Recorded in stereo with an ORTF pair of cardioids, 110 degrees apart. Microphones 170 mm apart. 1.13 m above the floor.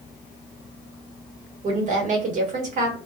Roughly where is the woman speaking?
Ahead right.